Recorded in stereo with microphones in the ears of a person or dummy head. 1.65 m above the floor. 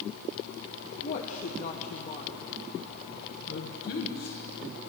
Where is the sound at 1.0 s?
40° left (ahead or behind), 1.0 m.